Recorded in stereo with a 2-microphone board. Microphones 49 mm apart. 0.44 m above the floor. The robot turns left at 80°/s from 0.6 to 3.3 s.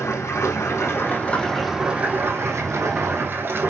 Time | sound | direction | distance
0.0 | running water | 85° left | 3 m